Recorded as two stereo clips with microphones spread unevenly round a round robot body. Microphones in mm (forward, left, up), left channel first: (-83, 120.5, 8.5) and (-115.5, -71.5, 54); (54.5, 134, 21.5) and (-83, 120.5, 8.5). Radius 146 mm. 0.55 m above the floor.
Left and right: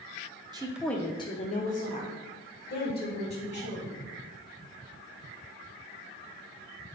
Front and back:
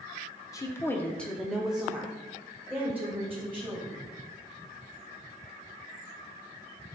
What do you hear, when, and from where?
0.5 s a woman speaking: 30° right, 0.6 m; by 4.0 s 110° left, 3 m